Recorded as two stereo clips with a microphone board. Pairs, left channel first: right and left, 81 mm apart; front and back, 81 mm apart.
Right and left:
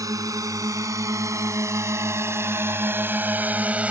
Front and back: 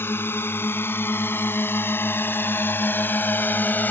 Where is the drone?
60° left; by 3.9 s 35° left.